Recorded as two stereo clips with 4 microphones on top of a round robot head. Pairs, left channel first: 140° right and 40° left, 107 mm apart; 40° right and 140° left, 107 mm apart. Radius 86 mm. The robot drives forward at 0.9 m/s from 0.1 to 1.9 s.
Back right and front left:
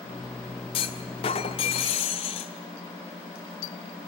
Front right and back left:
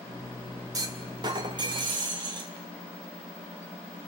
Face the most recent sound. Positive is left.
turn(degrees=-175)